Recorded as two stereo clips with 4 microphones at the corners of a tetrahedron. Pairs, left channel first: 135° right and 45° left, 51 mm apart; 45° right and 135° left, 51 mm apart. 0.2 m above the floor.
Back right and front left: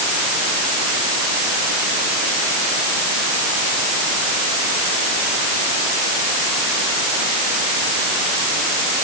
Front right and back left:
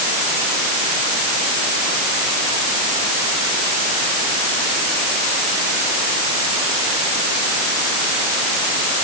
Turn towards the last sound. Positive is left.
No sound to turn to.